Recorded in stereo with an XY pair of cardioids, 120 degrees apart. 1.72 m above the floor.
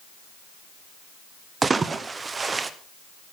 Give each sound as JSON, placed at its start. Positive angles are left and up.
{"t": 1.6, "sound": "a splash", "azimuth_deg": -25, "distance_m": 1.0}